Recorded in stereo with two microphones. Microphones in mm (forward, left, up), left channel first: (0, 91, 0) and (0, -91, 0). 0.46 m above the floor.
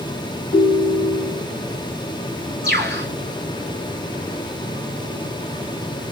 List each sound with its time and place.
0.5 s a ringtone: 70° right (ahead or behind), 1.9 m
2.6 s a bird: 65° right (ahead or behind), 4.5 m